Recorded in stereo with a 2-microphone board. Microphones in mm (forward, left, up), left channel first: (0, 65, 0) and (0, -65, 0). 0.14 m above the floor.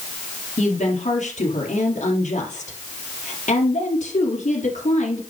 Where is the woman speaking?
65° left (ahead or behind), 3 m.